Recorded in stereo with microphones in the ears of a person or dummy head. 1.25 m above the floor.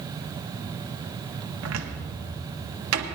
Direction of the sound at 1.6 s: 85° right.